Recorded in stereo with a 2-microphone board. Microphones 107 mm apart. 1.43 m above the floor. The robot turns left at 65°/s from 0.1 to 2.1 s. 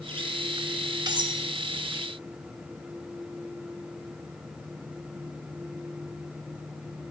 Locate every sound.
1.1 s cutlery clinking: 45° right (ahead or behind), 1.0 m; by 1.4 s 50° right (ahead or behind), 1.0 m